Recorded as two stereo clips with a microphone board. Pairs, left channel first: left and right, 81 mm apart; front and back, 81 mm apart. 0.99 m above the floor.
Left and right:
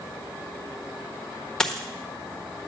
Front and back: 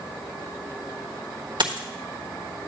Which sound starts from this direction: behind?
A dropped coin, at 1.6 s.